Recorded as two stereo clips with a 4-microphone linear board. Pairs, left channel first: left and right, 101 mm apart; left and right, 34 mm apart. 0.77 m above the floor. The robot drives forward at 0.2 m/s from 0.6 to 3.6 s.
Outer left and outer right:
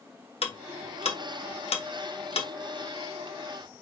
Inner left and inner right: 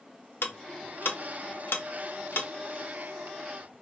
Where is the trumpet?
No trumpet in this recording.